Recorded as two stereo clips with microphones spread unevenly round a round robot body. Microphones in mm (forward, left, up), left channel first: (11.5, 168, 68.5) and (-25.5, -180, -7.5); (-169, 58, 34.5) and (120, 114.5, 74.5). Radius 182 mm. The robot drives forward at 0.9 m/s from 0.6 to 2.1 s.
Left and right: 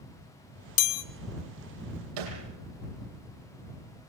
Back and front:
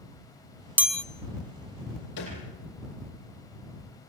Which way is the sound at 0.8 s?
100° left.